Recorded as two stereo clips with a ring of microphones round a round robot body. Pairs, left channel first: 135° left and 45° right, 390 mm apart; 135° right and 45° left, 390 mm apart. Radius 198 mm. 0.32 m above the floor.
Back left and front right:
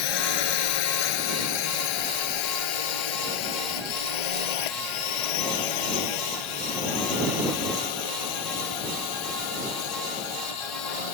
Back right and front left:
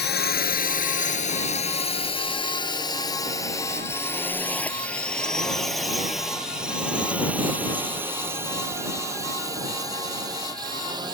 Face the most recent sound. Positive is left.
turn(degrees=125)